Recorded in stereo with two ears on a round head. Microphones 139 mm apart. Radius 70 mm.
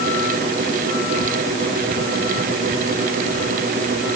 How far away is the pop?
No pop in this recording.